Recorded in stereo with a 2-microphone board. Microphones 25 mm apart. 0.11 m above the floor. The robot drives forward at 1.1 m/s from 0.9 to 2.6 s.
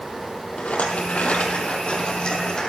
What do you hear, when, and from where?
0.6 s a rattle: 70° left (ahead or behind), 1.6 m; by 2.7 s 35° left (ahead or behind), 2.5 m